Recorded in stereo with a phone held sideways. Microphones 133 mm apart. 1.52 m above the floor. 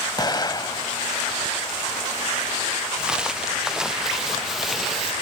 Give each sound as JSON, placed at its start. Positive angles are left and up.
{"t": 0.2, "sound": "an explosion", "side_deg": 30}
{"t": 3.0, "sound": "footsteps", "side_deg": -5}